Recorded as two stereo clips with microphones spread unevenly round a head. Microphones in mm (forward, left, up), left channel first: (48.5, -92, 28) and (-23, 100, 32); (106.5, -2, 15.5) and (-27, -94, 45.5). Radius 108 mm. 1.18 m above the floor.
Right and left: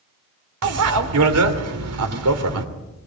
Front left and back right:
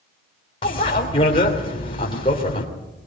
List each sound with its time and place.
0.6 s a bicycle bell: 105° left, 3 m